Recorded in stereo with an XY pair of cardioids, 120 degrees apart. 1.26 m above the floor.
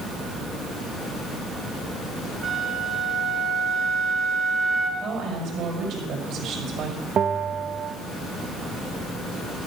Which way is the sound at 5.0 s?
65° right.